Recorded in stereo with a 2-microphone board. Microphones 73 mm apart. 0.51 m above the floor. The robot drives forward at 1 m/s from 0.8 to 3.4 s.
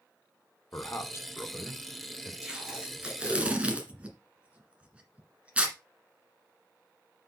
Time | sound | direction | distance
0.7 | a man speaking | 40° left (ahead or behind) | 1.5 m
2.4 | tape being pulled | 10° right (ahead or behind) | 3 m